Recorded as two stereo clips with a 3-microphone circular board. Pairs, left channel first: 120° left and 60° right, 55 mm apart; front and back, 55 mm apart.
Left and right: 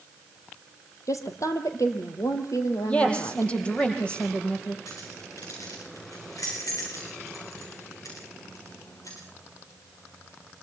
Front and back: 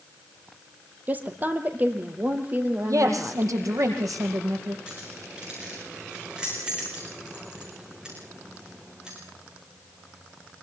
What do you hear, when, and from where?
1.1 s a woman speaking: 125° left, 3.5 m
2.9 s a woman speaking: 175° right, 5 m
4.9 s keys jangling: 105° left, 7.5 m